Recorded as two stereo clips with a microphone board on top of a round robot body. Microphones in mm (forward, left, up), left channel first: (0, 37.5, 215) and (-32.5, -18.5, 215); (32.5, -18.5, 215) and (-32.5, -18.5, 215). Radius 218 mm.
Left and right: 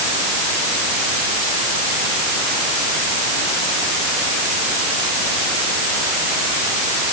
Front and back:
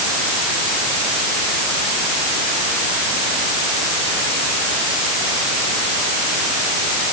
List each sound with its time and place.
Only background noise.